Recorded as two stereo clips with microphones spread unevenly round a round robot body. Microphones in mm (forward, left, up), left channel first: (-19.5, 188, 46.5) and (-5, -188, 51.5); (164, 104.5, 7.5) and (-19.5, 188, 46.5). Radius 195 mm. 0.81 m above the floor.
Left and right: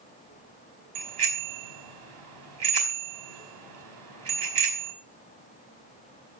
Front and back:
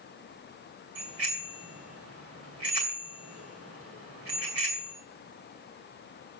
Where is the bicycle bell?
120° right, 4.5 m.